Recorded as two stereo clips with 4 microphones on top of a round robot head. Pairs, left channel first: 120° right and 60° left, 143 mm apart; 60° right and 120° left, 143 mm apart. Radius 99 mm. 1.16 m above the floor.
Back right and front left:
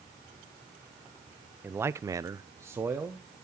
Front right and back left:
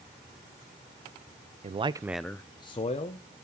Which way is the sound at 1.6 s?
130° left.